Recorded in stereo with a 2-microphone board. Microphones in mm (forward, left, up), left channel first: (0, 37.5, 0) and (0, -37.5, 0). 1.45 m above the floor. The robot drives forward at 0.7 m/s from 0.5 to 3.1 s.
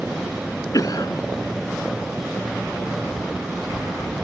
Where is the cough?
50° left (ahead or behind); by 1.2 s 55° left (ahead or behind).